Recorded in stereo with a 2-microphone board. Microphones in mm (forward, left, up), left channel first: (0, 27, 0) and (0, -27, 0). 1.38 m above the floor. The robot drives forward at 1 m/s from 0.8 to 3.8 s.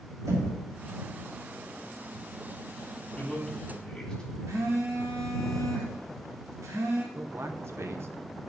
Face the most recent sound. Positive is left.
turn(degrees=-55)  # may be behind; listen again after turning